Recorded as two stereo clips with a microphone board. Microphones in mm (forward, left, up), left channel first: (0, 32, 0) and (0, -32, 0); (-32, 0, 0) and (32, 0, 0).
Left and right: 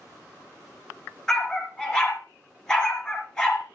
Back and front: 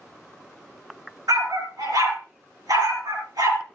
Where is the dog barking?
10° left, 4 m.